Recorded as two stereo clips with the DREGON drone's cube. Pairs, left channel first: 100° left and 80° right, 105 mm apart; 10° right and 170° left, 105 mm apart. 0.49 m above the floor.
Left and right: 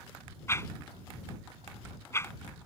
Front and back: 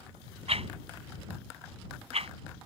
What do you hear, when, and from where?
0.5 s a whoosh: 165° left